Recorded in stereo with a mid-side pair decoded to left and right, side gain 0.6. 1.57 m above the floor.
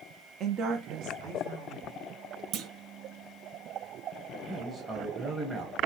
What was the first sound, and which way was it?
A woman speaking, 50° right.